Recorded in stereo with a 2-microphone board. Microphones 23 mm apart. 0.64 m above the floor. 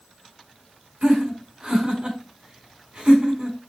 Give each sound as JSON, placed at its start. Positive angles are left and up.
{"t": 1.0, "sound": "laughter", "side_deg": -40, "distance_m": 4.0}